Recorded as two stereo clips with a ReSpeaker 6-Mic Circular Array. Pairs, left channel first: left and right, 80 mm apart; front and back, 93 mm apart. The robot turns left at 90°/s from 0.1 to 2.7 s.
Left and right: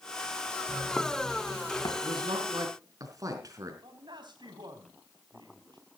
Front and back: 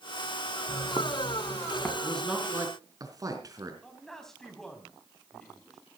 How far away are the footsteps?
About 2 m.